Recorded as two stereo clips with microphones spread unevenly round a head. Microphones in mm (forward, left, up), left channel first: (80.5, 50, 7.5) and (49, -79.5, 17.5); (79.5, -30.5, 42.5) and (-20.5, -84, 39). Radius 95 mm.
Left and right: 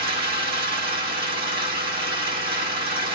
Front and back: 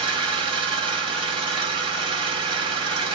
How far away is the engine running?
About 2.5 m.